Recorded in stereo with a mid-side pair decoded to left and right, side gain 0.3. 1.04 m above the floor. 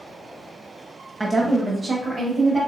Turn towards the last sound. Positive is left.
turn(degrees=-65)